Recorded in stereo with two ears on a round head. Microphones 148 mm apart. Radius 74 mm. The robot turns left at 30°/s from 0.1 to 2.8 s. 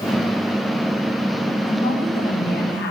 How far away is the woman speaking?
About 1.9 m.